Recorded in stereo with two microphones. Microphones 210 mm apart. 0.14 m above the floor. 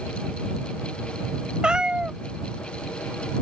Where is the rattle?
I don't hear a rattle.